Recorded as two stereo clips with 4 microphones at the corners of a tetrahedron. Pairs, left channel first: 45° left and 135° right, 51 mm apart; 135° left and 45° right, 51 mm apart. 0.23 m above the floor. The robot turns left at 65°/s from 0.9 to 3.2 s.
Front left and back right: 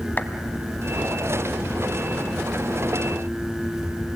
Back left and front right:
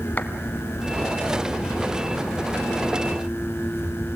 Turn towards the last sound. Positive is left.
turn(degrees=-60)